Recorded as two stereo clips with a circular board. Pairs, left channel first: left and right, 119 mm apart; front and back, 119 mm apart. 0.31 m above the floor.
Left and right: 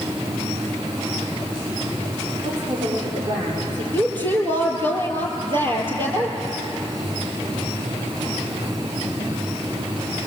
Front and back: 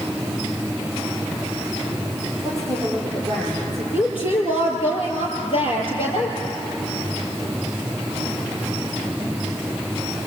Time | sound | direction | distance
2.4 | a woman speaking | 85° right | 9 m
3.9 | a woman speaking | 45° right | 6.5 m